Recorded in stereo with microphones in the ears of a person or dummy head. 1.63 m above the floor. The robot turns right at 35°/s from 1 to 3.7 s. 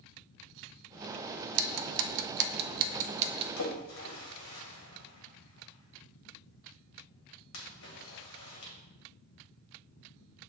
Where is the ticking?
75° right (ahead or behind), 0.6 m; by 3.5 s 25° right (ahead or behind), 0.6 m.